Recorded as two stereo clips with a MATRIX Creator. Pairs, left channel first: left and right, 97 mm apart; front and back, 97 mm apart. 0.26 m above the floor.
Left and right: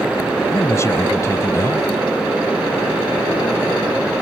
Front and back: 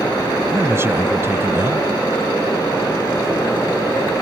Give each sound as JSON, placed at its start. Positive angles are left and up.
{"t": 0.5, "sound": "a man speaking", "azimuth_deg": 130}